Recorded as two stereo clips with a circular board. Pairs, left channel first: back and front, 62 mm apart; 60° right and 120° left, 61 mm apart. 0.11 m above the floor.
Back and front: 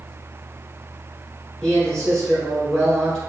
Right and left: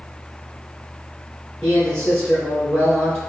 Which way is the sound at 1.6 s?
120° right.